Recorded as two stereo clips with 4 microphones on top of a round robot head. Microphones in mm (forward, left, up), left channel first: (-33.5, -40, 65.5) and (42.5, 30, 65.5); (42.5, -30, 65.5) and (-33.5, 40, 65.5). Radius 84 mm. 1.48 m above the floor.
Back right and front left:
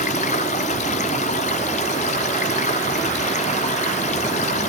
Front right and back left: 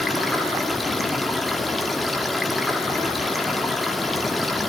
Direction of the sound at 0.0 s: 130° right.